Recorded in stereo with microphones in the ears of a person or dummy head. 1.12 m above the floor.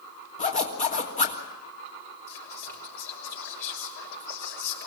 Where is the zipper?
40° left (ahead or behind), 3 m.